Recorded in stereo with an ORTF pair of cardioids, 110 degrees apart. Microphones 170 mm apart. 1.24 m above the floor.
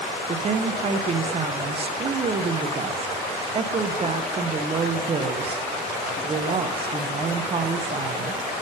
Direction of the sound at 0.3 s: 35° right.